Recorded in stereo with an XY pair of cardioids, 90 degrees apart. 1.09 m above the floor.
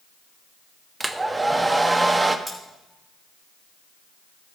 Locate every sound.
1.0 s a hair dryer: 20° right, 0.9 m
2.5 s cutlery clinking: straight ahead, 3.5 m